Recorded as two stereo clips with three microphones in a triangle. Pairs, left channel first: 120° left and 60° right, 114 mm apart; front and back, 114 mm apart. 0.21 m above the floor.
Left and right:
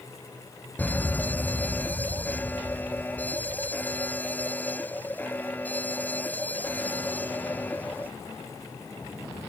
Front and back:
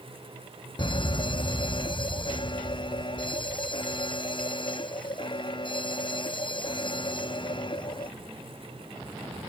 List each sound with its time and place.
0.8 s a fire alarm: 45° left